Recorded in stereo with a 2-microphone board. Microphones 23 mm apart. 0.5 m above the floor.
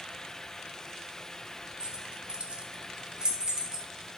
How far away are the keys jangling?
About 0.9 m.